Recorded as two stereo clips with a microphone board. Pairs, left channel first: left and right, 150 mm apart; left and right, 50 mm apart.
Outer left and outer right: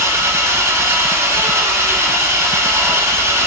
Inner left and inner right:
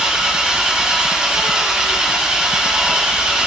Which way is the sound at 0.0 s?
20° right (ahead or behind).